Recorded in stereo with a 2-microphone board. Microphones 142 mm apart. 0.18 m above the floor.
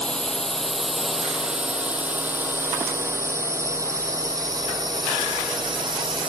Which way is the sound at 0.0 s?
5° left (ahead or behind).